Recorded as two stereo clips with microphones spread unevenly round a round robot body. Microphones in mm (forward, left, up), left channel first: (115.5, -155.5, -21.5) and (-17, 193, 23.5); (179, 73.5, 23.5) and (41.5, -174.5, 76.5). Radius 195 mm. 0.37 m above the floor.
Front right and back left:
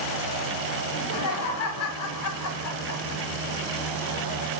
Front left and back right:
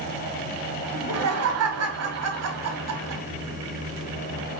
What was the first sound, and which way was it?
Laughter, 95° right.